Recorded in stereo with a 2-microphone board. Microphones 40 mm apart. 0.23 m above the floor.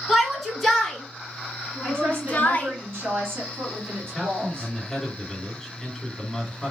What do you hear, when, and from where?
0.1 s a shout: centre (ahead or behind), 2.5 m; by 2.7 s 35° left (ahead or behind), 1.9 m
1.8 s a woman speaking: 60° right (ahead or behind), 2.5 m
4.0 s a man speaking: 5° left (ahead or behind), 2 m